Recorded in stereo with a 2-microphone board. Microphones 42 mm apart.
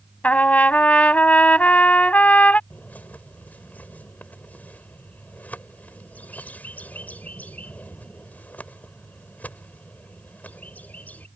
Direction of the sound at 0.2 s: 35° left (ahead or behind).